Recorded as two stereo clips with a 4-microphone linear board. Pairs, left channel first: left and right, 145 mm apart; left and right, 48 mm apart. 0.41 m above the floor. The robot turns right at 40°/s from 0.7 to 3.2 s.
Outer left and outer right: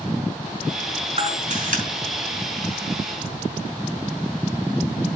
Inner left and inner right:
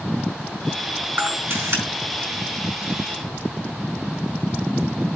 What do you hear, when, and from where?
1.2 s a camera shutter: 45° right (ahead or behind), 4.5 m; by 1.8 s 70° right (ahead or behind), 4.5 m